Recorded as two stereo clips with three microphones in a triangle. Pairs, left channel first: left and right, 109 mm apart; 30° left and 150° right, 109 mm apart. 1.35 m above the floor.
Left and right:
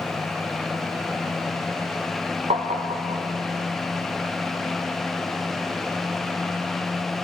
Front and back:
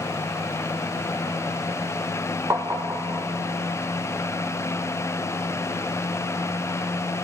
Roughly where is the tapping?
Right.